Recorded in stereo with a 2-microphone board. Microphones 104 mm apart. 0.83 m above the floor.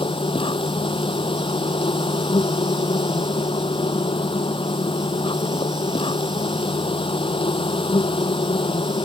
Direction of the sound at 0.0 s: 55° left (ahead or behind).